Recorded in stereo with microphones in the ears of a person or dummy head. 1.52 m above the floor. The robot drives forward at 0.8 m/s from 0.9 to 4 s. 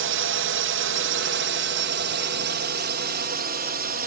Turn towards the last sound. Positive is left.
turn(degrees=-55)  # may be behind; listen again after turning